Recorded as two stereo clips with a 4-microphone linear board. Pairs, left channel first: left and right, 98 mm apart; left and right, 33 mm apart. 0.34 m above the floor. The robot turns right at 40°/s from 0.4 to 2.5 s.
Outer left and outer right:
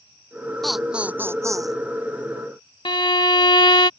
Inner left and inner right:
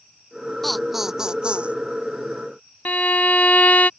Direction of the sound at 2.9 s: 55° left (ahead or behind).